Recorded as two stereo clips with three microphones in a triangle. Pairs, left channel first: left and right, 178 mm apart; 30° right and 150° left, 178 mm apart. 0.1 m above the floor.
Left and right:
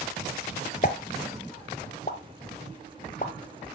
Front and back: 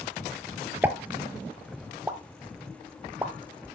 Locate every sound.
0.8 s a pop: 75° left, 0.9 m